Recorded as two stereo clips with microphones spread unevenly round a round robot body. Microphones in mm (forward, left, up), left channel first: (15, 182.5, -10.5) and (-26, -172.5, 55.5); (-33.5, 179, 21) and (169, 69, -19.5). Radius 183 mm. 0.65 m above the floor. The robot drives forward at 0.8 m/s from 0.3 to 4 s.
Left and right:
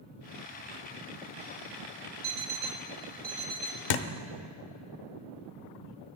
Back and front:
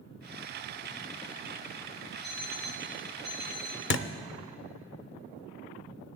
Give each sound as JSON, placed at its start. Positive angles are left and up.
{"t": 2.2, "sound": "an alarm clock", "azimuth_deg": -145, "distance_m": 0.7}
{"t": 3.9, "sound": "a thud", "azimuth_deg": 105, "distance_m": 0.7}